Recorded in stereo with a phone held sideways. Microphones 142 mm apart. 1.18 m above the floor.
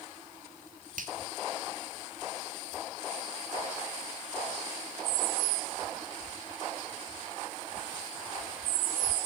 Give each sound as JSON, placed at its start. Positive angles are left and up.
{"t": 1.0, "sound": "a finger snap", "side_deg": -70, "distance_m": 1.9}